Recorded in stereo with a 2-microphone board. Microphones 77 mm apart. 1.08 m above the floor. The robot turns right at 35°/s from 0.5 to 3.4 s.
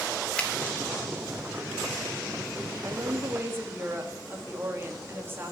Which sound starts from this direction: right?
A woman speaking, at 2.8 s.